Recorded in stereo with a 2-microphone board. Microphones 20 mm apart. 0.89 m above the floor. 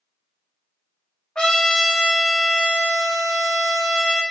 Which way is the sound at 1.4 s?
55° left (ahead or behind).